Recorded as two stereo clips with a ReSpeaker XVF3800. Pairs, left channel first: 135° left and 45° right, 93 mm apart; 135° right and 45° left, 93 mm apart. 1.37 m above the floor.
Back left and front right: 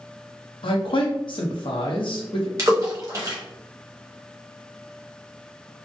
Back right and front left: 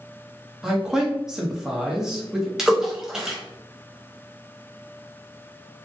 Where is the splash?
40° right, 0.8 m.